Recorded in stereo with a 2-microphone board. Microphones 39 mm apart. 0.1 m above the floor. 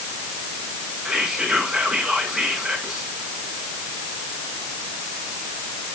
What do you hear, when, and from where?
1.1 s whispering: centre (ahead or behind), 6.5 m